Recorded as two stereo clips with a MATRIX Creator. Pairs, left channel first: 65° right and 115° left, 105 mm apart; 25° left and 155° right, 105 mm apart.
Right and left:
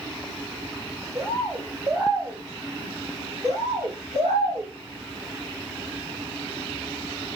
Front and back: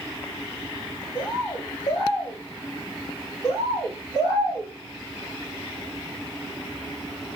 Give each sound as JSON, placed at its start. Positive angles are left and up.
{"t": 1.1, "sound": "a bird", "azimuth_deg": 60, "distance_m": 2.5}
{"t": 3.4, "sound": "a bird", "azimuth_deg": 85, "distance_m": 5.0}